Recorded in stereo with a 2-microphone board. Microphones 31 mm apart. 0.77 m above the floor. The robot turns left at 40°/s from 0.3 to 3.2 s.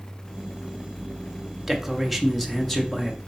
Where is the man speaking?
165° right, 0.8 m; by 3.2 s 135° left, 0.8 m.